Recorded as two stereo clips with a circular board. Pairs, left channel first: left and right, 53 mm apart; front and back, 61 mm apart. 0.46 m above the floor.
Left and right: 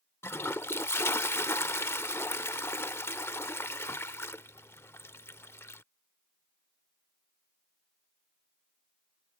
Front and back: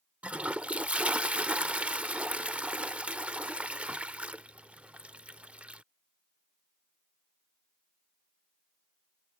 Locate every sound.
0.2 s a toilet flushing: 115° left